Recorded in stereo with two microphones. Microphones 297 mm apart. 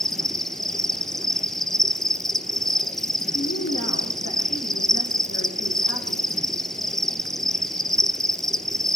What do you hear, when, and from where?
0.0 s an insect: centre (ahead or behind), 1.0 m
3.3 s a woman speaking: 60° left (ahead or behind), 8.5 m